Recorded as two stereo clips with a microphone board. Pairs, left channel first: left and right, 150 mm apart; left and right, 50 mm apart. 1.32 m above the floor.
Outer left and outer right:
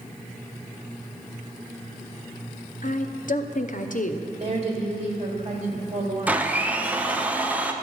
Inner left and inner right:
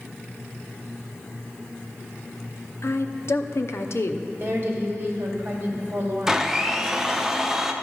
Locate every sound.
2.8 s a woman speaking: 60° left (ahead or behind), 0.7 m
4.4 s a woman speaking: 45° right (ahead or behind), 2.5 m
6.3 s a blender: 10° right (ahead or behind), 0.7 m